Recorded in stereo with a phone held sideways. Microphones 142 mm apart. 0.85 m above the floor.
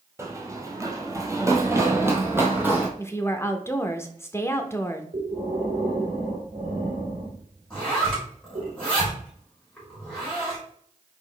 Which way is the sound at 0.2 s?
20° right (ahead or behind).